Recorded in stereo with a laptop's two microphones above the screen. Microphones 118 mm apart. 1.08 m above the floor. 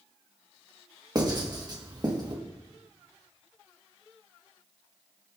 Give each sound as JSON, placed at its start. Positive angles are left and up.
{"t": 1.1, "sound": "writing", "side_deg": -35, "distance_m": 1.4}